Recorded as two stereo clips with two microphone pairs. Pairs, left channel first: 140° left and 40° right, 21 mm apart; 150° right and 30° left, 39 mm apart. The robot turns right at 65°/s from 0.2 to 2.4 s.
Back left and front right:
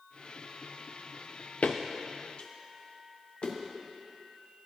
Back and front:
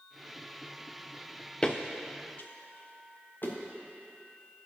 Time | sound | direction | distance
1.6 | footsteps | 145° left | 0.9 m